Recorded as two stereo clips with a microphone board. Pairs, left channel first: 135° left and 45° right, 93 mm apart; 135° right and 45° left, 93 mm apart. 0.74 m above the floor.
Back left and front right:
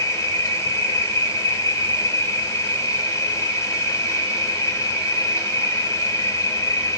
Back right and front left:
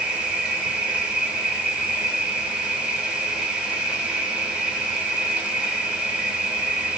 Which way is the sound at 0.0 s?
115° left.